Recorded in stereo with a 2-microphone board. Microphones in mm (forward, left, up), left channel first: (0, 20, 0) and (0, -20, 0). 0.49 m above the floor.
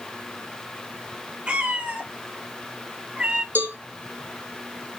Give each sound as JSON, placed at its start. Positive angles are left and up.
{"t": 1.5, "sound": "a cat meowing", "side_deg": -25, "distance_m": 0.7}
{"t": 3.5, "sound": "a cowbell", "side_deg": -55, "distance_m": 0.9}